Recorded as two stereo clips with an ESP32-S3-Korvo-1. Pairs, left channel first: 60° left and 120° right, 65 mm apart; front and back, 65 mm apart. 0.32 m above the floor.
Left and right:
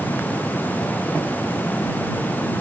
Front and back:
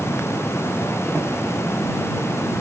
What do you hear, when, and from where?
Only background noise.